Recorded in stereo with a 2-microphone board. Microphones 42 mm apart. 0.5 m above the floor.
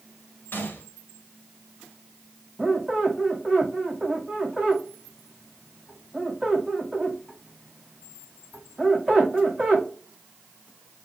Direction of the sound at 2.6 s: Centre (ahead or behind).